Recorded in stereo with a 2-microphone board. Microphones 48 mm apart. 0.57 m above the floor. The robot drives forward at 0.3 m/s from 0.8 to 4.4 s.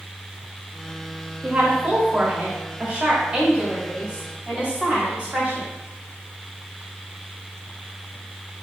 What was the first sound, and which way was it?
A woman speaking, 30° right (ahead or behind).